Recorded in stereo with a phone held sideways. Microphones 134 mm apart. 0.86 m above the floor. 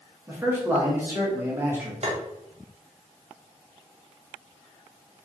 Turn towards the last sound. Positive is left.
turn(degrees=-55)  # may be behind; listen again after turning